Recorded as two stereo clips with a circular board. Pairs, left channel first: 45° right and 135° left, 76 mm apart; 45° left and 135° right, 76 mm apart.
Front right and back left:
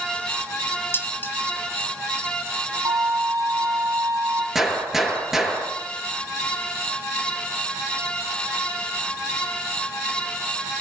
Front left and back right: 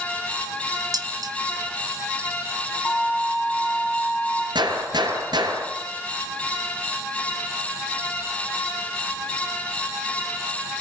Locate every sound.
0.9 s dishes clattering: 105° right, 2.5 m
2.9 s a violin: 115° left, 8.5 m
4.5 s a gunshot: 140° right, 7 m